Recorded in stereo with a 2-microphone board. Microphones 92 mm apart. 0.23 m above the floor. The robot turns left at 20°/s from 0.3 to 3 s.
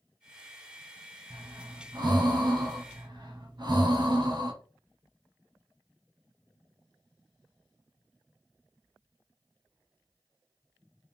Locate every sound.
1.3 s breathing: 65° right, 1.0 m; by 4.5 s 100° right, 1.0 m